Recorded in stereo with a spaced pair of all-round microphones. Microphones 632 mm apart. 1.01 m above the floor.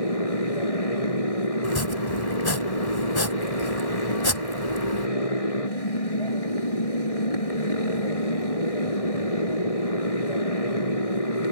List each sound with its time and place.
0.0 s a motorcycle: 60° left (ahead or behind)
1.6 s chopping: 35° left (ahead or behind)